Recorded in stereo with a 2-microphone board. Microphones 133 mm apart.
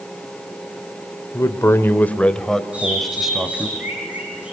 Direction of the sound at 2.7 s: 10° right (ahead or behind).